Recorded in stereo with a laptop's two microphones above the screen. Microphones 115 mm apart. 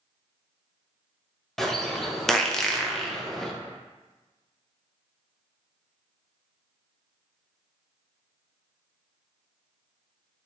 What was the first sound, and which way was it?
A bird, 5° left (ahead or behind).